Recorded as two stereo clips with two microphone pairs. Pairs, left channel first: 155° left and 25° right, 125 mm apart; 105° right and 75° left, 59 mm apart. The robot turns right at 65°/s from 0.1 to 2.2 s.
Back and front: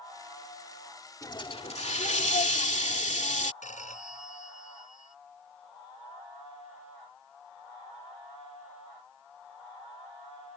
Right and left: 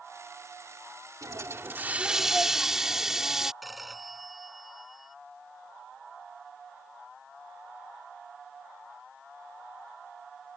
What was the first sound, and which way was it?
A hiss, 95° left.